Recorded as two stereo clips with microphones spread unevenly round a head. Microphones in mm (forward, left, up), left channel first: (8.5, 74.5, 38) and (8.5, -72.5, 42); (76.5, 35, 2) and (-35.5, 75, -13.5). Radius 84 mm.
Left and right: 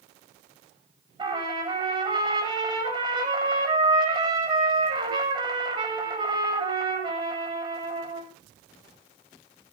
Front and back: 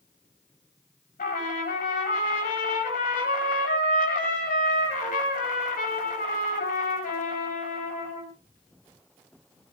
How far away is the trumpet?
About 9.5 m.